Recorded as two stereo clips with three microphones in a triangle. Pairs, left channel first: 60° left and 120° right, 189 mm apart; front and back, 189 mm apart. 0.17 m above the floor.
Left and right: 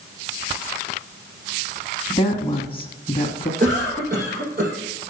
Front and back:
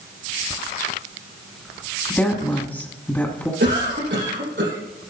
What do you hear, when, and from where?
2.1 s a woman speaking: 70° left, 1.2 m
3.6 s a cough: 160° right, 5 m